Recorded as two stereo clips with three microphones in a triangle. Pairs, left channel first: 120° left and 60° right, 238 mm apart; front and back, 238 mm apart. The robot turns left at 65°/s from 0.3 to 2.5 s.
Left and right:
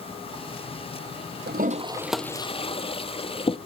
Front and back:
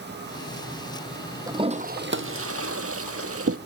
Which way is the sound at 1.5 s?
105° right.